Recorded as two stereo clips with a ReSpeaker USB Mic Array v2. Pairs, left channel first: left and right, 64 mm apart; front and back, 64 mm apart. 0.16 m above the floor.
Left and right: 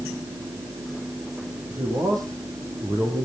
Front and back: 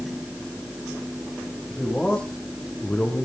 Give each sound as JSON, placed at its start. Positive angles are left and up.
{"t": 1.7, "sound": "a man speaking", "azimuth_deg": -75, "distance_m": 7.0}